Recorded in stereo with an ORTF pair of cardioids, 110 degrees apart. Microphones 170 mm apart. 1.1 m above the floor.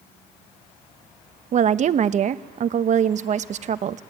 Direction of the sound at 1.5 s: 45° right.